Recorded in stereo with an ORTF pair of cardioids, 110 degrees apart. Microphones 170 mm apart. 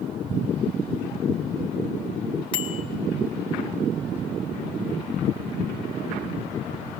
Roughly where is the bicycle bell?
Ahead left.